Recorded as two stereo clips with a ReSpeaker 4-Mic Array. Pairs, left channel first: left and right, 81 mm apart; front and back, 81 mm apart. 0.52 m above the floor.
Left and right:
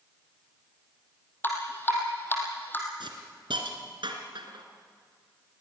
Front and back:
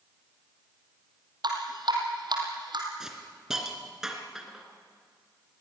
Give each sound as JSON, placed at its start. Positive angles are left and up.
{"t": 1.4, "sound": "dripping", "azimuth_deg": 155, "distance_m": 3.5}
{"t": 3.0, "sound": "a hiss", "azimuth_deg": -95, "distance_m": 2.5}